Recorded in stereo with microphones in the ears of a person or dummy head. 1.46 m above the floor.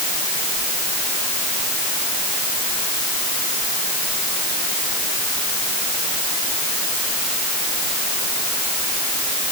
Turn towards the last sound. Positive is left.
No sound to turn to.